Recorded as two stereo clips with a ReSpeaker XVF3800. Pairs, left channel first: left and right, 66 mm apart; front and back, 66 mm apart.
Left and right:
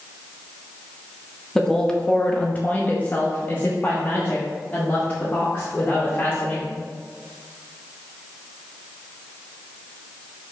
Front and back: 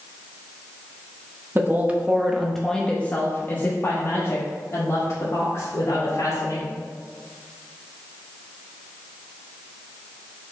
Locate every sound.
1.6 s a woman speaking: 170° left, 0.8 m; by 6.8 s 25° left, 2.5 m